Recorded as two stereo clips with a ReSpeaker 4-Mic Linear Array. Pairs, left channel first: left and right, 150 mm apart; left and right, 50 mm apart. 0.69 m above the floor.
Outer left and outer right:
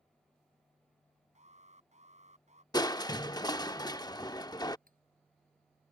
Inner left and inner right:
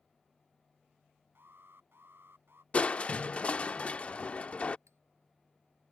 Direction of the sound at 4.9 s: 70° right (ahead or behind).